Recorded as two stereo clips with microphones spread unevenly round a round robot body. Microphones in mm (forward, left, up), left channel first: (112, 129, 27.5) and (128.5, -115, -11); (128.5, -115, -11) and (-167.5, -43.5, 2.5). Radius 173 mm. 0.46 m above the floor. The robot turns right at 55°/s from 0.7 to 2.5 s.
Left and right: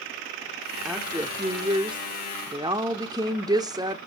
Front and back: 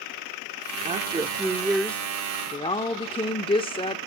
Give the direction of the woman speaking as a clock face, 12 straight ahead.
5 o'clock.